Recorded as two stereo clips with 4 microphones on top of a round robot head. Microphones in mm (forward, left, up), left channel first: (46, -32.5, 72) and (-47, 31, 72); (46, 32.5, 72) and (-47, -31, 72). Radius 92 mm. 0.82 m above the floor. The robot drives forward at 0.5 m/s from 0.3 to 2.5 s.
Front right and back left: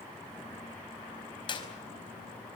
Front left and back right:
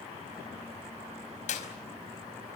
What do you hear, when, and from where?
1.5 s a clap: 15° left, 5 m